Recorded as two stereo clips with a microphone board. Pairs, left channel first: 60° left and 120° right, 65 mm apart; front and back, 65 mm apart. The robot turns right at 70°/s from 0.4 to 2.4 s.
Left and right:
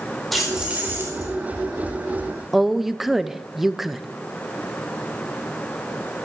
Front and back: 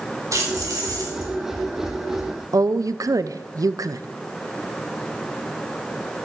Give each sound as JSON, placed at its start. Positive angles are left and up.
{"t": 0.3, "sound": "keys jangling", "azimuth_deg": 145, "distance_m": 4.5}
{"t": 2.5, "sound": "a woman speaking", "azimuth_deg": 155, "distance_m": 0.5}